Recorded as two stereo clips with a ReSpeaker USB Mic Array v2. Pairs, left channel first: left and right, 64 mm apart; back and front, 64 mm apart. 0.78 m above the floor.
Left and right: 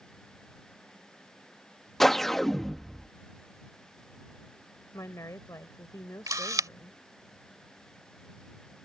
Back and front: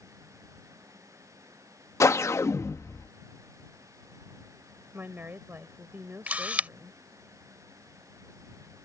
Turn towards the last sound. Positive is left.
turn(degrees=-70)